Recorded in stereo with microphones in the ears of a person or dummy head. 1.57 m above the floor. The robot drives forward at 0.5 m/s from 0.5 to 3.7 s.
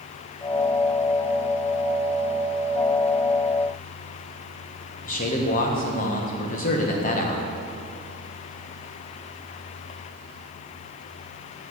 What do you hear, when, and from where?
5.0 s a man speaking: 45° left (ahead or behind), 1.4 m